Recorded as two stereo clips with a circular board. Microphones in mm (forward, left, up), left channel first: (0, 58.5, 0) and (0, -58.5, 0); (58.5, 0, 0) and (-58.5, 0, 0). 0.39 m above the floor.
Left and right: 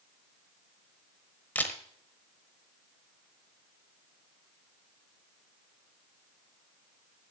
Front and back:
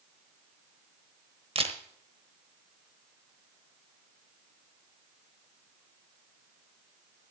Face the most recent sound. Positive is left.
turn(degrees=165)